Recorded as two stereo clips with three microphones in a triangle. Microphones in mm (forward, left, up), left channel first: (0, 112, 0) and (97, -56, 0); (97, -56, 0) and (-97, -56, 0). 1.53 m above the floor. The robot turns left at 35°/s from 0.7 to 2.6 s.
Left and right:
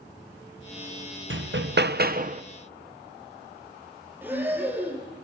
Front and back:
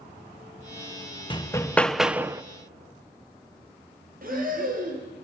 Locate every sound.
1.3 s hammering: 65° right, 0.8 m; by 2.4 s 105° right, 0.8 m
4.2 s breathing: 140° right, 5 m